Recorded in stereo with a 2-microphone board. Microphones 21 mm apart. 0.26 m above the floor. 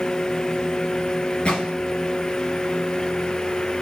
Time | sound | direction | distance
1.4 | a gunshot | 60° left (ahead or behind) | 4.5 m